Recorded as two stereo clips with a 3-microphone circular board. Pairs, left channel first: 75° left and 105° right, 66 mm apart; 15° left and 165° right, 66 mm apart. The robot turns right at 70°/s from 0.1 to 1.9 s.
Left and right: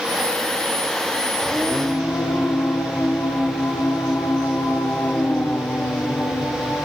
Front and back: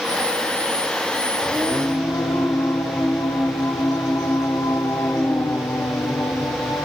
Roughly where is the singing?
Ahead.